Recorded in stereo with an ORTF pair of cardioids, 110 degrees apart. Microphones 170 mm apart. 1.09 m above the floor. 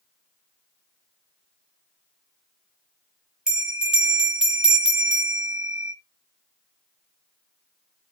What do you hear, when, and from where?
3.5 s a bell: 5° right, 1.0 m